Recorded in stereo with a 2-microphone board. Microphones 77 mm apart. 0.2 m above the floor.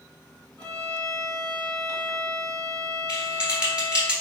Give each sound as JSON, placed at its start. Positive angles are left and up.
{"t": 0.6, "sound": "a violin", "side_deg": 15, "distance_m": 1.6}
{"t": 3.1, "sound": "typing on a keyboard", "side_deg": -15, "distance_m": 1.5}